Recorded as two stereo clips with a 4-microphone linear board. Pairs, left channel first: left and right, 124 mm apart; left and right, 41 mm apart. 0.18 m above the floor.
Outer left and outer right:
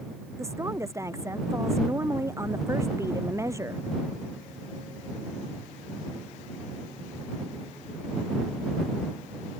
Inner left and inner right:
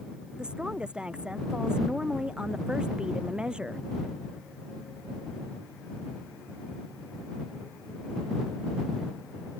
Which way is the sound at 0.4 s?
20° right (ahead or behind).